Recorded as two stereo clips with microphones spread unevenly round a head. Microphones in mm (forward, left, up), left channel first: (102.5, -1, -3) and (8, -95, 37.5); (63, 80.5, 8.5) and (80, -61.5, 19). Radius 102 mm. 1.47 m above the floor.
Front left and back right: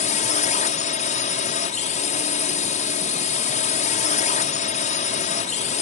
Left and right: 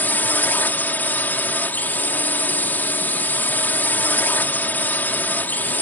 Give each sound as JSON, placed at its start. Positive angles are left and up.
{"t": 0.0, "sound": "a drone", "azimuth_deg": 20}